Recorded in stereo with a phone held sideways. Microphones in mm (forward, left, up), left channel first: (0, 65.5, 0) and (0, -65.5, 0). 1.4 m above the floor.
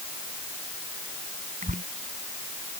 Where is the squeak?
75° right (ahead or behind).